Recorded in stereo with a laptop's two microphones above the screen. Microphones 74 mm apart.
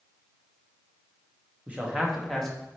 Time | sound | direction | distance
1.7 | a man speaking | 20° right (ahead or behind) | 1.2 m